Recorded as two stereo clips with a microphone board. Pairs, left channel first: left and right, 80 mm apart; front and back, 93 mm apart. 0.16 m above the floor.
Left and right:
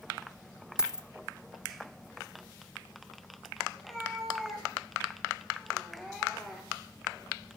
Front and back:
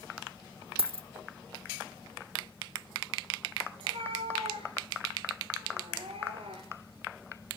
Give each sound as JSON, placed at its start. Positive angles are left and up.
{"t": 0.8, "sound": "a dropped coin", "azimuth_deg": -170, "distance_m": 1.0}
{"t": 3.8, "sound": "a cat meowing", "azimuth_deg": 175, "distance_m": 6.5}